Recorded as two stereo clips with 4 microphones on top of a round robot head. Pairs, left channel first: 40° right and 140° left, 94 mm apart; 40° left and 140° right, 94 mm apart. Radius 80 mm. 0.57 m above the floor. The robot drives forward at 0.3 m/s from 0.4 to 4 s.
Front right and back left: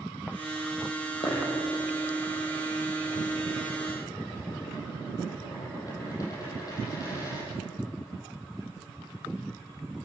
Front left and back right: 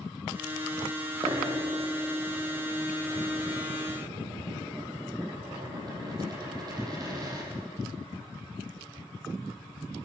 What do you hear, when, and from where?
1.2 s a dropped coin: 90° right, 8 m; by 7.5 s 95° right, 8 m